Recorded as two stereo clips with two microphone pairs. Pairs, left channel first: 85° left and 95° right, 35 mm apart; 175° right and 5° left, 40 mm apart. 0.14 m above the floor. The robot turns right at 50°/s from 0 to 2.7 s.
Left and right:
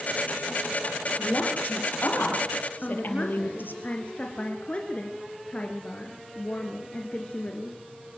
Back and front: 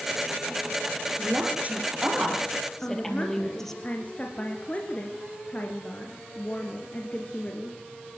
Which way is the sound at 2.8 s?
135° left.